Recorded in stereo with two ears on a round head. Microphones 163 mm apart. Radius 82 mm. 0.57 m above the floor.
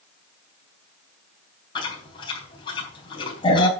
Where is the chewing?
25° left (ahead or behind), 3.5 m.